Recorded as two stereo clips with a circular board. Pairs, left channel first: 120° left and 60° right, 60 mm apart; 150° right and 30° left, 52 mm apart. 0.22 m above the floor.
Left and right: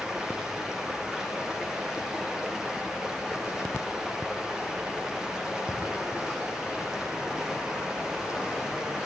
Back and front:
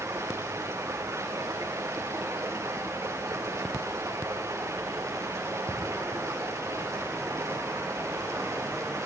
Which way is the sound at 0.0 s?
20° left.